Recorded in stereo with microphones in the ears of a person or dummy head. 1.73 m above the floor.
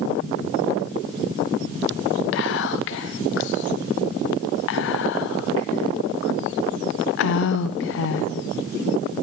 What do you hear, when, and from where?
2.3 s whispering: 65° left (ahead or behind), 0.8 m